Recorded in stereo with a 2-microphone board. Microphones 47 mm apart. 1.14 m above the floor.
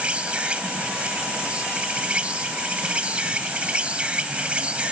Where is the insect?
30° right (ahead or behind).